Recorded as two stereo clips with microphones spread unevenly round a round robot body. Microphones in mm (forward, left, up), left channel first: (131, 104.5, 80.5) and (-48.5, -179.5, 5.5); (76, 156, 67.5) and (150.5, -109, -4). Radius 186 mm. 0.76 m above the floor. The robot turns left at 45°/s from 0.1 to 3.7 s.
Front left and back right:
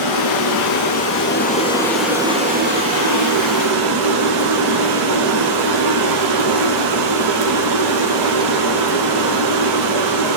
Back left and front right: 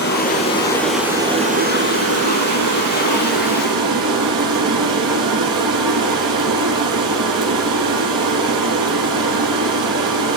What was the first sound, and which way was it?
Running water, 55° left.